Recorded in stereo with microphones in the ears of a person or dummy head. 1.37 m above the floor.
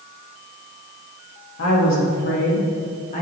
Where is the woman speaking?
65° left (ahead or behind), 2.5 m; by 3.2 s 35° left (ahead or behind), 2.0 m.